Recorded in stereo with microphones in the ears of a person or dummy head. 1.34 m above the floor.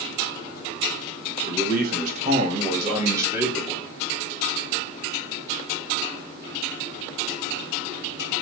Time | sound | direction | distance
1.5 | a man speaking | 55° right (ahead or behind) | 1.9 m